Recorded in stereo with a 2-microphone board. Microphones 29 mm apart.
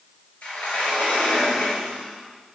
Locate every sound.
0.4 s a sliding door: 55° left (ahead or behind), 3 m